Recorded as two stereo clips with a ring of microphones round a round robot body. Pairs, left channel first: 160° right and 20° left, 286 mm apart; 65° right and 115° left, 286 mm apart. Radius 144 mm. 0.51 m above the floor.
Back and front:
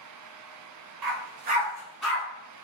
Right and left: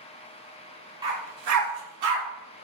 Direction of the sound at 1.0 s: 40° left.